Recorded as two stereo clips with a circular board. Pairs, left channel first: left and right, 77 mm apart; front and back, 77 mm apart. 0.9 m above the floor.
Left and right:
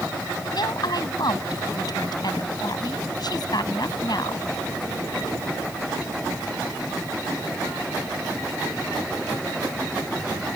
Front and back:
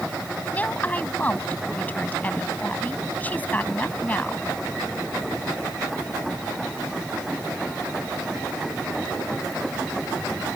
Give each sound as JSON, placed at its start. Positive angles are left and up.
{"t": 0.5, "sound": "a woman speaking", "azimuth_deg": 70}